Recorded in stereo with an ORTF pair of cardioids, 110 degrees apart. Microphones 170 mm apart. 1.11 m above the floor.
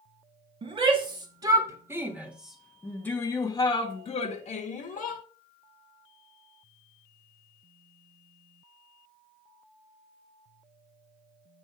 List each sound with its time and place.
0.6 s a shout: 30° right, 2 m; by 5.2 s 55° left, 1.7 m